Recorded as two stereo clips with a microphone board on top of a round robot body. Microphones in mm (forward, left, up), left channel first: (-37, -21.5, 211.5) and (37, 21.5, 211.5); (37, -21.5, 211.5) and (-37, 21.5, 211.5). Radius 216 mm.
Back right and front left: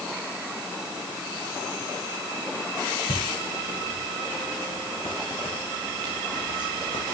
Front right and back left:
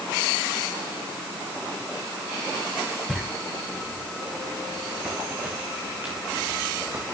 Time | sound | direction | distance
3.1 | footsteps | 120° right | 3.5 m